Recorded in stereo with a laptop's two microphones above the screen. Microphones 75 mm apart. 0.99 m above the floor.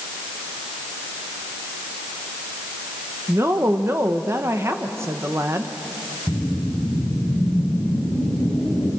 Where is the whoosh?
10° right (ahead or behind), 6 m.